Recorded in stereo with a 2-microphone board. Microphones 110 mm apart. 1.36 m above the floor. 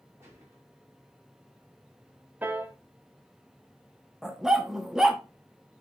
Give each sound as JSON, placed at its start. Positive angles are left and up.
{"t": 0.2, "sound": "a gunshot", "side_deg": -25, "distance_m": 5.0}
{"t": 2.4, "sound": "a piano", "side_deg": -15, "distance_m": 1.1}
{"t": 4.2, "sound": "a dog barking", "side_deg": -5, "distance_m": 0.9}